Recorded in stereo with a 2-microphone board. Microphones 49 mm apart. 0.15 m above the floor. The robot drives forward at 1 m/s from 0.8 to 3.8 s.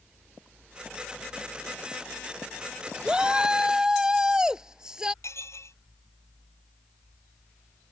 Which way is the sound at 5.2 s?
70° left (ahead or behind).